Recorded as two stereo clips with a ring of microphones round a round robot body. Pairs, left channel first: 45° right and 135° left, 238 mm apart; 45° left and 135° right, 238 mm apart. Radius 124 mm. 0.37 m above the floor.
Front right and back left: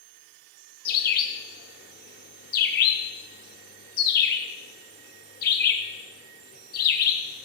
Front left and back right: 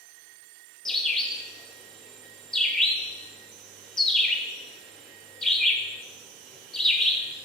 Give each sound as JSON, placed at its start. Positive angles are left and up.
{"t": 0.8, "sound": "a bird", "azimuth_deg": -40, "distance_m": 0.7}